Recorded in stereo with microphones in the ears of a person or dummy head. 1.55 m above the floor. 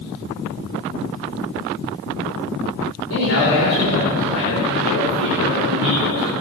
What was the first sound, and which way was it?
A man speaking, 75° left (ahead or behind).